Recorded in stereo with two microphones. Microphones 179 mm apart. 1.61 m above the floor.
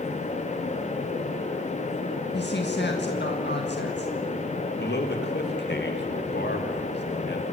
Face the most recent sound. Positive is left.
turn(degrees=75)  # may be behind; listen again after turning